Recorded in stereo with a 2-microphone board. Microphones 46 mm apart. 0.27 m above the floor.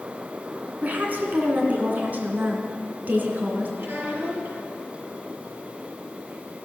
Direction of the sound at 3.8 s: 65° right (ahead or behind).